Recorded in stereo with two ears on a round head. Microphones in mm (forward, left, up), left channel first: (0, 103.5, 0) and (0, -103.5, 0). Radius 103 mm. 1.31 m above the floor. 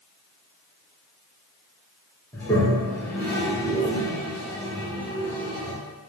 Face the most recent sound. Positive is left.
turn(degrees=10)  # may be behind; listen again after turning